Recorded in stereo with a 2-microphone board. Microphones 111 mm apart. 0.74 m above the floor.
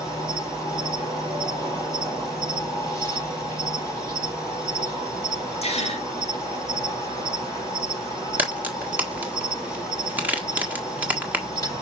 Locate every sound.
0.0 s an insect: 30° left (ahead or behind), 6 m
5.6 s a gasp: 70° left (ahead or behind), 3 m
8.4 s a crack: 15° right (ahead or behind), 1.6 m